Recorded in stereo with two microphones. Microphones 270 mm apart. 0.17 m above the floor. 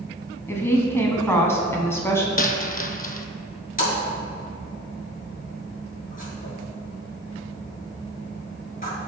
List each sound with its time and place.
0.5 s a woman speaking: 10° left (ahead or behind), 1.1 m
2.4 s a dropped coin: 35° left (ahead or behind), 0.5 m
3.8 s a splash: 30° left (ahead or behind), 2.5 m